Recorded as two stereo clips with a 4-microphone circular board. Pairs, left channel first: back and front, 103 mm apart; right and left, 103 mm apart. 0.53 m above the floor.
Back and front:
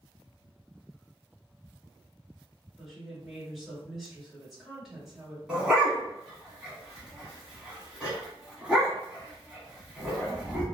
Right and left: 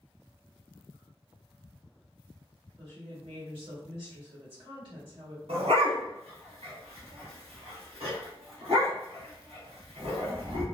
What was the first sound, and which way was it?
A woman speaking, 85° left.